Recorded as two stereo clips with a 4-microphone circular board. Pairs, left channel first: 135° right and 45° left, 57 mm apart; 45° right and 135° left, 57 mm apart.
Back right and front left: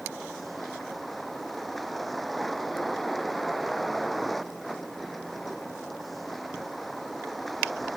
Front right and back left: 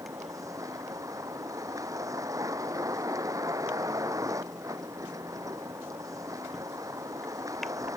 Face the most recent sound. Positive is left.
turn(degrees=135)